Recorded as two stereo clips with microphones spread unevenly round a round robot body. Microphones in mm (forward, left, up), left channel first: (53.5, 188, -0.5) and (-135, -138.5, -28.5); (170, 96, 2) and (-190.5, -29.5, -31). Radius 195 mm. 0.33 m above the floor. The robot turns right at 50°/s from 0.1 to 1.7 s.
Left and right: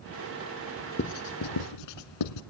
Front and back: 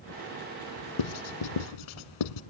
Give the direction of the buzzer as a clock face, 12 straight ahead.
No buzzer in this recording.